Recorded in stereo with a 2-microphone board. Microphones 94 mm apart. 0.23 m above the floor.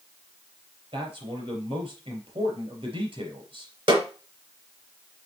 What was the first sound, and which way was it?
A man speaking, 75° right (ahead or behind).